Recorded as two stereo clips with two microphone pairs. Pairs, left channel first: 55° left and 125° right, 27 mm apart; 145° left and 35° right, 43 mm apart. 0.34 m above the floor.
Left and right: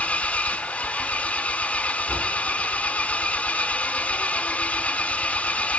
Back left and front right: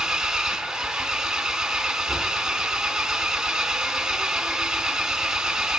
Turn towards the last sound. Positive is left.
turn(degrees=45)